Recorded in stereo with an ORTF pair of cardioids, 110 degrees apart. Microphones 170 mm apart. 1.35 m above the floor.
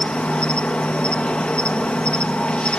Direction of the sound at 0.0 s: 5° left.